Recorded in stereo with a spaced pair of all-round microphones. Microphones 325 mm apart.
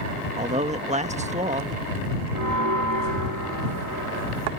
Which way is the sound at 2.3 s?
70° right (ahead or behind).